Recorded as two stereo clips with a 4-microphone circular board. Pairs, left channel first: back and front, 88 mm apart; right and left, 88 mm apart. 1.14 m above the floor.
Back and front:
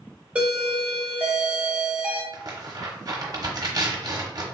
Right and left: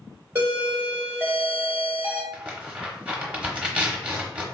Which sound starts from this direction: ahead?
Tearing paper, at 2.3 s.